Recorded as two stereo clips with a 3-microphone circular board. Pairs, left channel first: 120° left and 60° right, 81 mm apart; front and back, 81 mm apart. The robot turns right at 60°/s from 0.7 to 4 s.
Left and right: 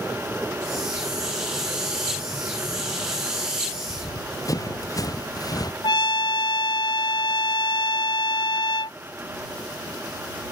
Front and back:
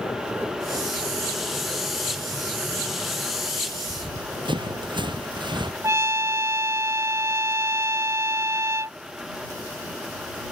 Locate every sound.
3.9 s running footsteps: 160° left
5.8 s a trumpet: 130° left